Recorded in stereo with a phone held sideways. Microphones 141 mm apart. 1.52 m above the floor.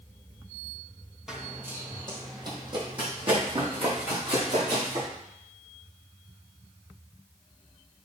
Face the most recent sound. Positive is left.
turn(degrees=-50)  # may be behind; listen again after turning